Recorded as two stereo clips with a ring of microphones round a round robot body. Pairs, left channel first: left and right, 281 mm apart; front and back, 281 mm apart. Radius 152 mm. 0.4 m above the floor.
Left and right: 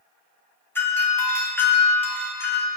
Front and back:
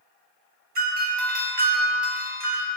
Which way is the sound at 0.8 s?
170° left.